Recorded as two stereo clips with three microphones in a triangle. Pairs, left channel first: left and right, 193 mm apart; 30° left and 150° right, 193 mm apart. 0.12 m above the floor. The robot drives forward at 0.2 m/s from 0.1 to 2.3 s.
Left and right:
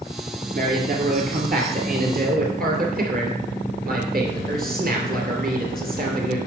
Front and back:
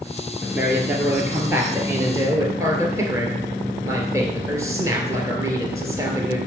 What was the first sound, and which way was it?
A man speaking, 70° right.